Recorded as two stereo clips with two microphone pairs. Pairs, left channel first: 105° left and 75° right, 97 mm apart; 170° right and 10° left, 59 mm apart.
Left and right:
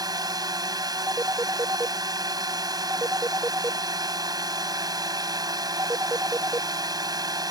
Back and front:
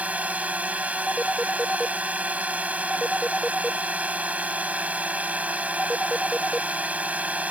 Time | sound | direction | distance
0.0 | a drone | 45° right | ?
1.1 | a phone ringing | 90° right | ?